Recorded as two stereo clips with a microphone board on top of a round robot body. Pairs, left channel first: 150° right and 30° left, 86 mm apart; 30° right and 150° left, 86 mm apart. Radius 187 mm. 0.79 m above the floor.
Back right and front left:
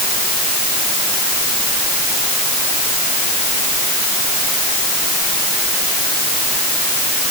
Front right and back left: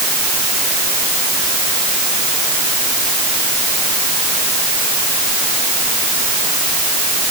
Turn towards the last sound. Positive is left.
No sound to turn to.